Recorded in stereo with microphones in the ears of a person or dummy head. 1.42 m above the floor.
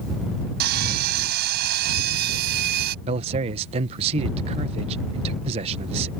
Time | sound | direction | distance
0.6 | sawing | 55° right (ahead or behind) | ?
3.0 | a man speaking | 35° right (ahead or behind) | ?